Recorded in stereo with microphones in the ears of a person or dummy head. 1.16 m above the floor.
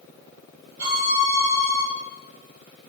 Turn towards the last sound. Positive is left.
turn(degrees=-65)  # may be behind; listen again after turning